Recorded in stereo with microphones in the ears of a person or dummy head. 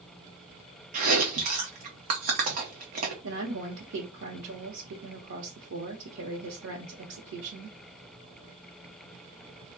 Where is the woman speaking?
70° right (ahead or behind), 1.0 m.